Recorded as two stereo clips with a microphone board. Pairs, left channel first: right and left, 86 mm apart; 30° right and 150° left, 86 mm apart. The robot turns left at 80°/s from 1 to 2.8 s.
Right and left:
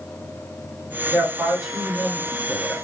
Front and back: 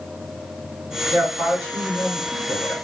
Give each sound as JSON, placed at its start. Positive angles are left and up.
{"t": 1.1, "sound": "a man speaking", "azimuth_deg": 80, "distance_m": 1.6}